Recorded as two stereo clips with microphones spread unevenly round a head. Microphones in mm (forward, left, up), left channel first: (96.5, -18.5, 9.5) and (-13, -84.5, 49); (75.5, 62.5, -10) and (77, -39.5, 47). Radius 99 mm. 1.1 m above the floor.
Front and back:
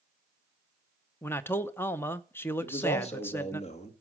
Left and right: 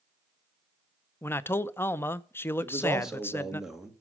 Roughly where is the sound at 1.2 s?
Left.